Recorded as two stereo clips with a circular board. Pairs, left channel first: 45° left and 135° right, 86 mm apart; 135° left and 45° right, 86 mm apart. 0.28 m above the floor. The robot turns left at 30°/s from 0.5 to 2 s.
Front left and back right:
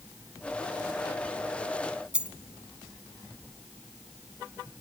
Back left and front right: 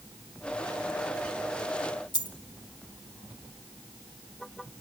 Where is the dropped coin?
150° left, 1.0 m.